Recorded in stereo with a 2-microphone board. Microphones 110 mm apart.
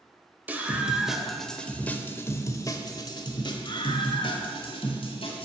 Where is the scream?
15° right (ahead or behind), 1.3 m; by 5.5 s 60° left (ahead or behind), 2.5 m.